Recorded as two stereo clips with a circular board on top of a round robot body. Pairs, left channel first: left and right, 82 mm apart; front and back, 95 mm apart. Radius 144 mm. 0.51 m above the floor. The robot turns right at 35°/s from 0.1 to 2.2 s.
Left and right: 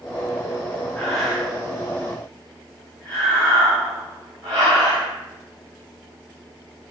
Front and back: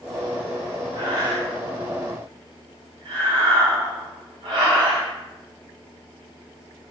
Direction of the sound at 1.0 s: 175° left.